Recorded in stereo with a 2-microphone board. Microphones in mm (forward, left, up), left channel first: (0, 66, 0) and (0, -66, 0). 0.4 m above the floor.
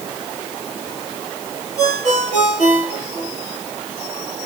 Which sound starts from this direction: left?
A ringtone, at 1.8 s.